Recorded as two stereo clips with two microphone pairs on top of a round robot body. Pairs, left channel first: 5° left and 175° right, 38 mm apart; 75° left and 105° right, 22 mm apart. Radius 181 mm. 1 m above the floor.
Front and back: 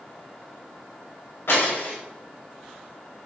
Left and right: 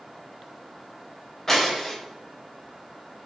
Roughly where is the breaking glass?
Ahead.